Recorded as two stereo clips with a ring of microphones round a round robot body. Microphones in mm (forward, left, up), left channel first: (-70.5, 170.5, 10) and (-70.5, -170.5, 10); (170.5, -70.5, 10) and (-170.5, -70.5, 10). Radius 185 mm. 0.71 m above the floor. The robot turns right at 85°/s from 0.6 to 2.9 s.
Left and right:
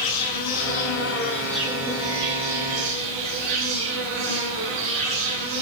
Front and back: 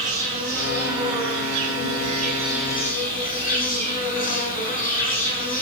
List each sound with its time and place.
0.0 s an insect: 100° left, 5.5 m; by 5.6 s 65° right, 5.5 m